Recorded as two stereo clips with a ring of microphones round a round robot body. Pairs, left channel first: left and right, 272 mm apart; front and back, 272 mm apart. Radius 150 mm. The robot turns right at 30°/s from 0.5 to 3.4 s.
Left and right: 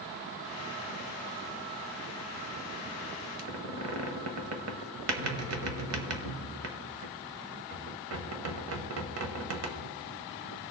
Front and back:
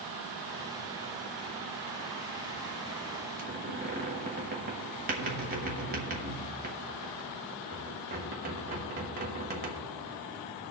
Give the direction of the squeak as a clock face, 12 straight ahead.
4 o'clock.